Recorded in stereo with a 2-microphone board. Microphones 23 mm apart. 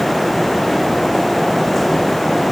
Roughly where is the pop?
I don't hear a pop.